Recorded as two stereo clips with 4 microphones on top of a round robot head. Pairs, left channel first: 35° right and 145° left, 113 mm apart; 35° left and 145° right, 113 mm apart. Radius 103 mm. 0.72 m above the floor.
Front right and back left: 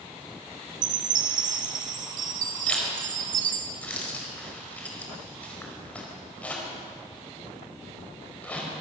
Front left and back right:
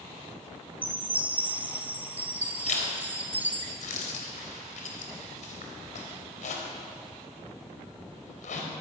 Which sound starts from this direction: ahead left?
A zipper, at 2.7 s.